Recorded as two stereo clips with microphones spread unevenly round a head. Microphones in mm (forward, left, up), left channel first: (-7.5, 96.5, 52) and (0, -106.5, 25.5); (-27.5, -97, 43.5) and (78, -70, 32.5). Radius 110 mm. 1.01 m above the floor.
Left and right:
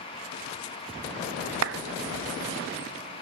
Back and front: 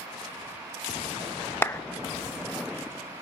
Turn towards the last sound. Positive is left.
turn(degrees=-95)